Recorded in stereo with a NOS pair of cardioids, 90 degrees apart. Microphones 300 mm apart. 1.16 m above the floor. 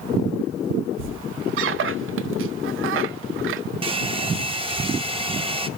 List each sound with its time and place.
1.0 s a squeak: 50° right, 0.5 m
3.8 s a hair dryer: 20° right, 0.9 m